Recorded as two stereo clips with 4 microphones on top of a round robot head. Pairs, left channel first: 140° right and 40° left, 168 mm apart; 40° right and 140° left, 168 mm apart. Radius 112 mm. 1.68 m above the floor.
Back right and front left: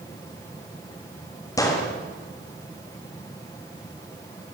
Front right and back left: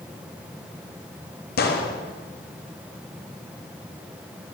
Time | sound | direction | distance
1.6 | a gunshot | 70° right | 4 m